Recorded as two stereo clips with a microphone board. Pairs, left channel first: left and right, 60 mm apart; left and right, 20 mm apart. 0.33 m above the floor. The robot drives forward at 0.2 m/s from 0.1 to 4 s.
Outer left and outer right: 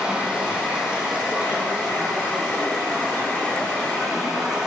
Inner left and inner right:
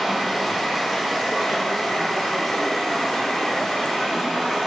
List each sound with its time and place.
0.0 s running water: 15° right (ahead or behind), 1.4 m; by 4.7 s 10° right (ahead or behind), 2 m